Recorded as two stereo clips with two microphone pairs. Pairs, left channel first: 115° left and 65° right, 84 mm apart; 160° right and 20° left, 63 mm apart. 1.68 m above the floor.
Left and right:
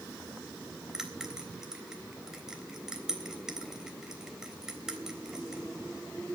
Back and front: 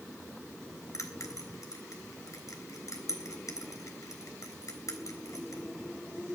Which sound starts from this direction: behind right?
A bell, at 0.9 s.